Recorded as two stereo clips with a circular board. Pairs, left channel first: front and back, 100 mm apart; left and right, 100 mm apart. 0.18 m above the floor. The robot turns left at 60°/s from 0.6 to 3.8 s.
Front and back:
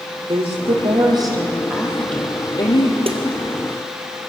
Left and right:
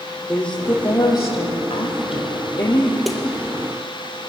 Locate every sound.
0.3 s a woman speaking: 170° left, 6 m; by 3.0 s 30° left, 6 m
3.1 s a snare drum: straight behind, 2.5 m; by 3.2 s 170° left, 2.5 m